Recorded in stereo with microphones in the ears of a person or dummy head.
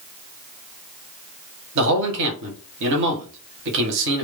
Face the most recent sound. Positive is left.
turn(degrees=-65)  # may be behind; listen again after turning